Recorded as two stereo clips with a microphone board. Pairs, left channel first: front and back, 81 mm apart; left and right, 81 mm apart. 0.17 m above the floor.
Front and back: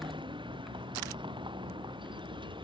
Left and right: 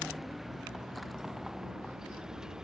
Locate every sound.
0.0 s a vehicle: straight behind; by 2.6 s 170° right